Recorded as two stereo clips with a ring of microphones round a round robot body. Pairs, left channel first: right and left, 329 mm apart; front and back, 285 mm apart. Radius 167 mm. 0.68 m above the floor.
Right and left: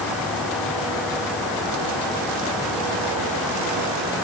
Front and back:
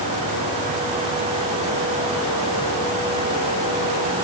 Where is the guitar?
No guitar in this recording.